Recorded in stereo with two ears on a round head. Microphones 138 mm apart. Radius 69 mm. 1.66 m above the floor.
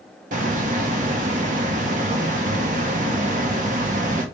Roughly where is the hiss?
Right.